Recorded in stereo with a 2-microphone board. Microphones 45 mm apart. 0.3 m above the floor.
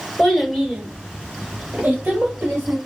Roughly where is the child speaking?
Centre.